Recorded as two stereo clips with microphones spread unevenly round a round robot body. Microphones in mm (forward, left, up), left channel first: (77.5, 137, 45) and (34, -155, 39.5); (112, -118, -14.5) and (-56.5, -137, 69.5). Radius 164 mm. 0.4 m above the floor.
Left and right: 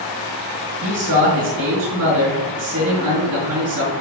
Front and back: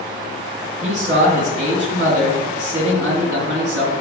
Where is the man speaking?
150° right, 3.5 m.